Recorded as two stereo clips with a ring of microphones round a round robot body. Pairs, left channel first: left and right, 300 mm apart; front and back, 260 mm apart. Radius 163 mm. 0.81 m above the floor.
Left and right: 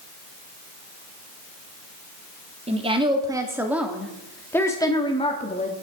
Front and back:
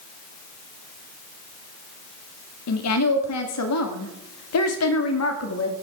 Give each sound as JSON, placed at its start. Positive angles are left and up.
{"t": 2.7, "sound": "a woman speaking", "azimuth_deg": -20, "distance_m": 2.0}